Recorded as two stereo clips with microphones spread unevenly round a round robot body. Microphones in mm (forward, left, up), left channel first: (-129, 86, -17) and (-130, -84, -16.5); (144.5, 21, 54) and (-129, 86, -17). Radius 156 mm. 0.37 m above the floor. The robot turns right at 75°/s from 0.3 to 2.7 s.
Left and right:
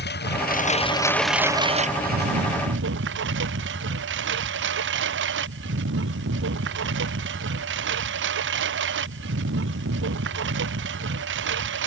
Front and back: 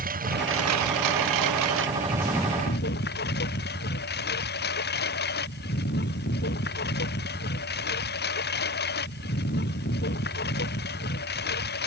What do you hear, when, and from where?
0.0 s a lawn mower: 105° left; by 11.9 s 75° right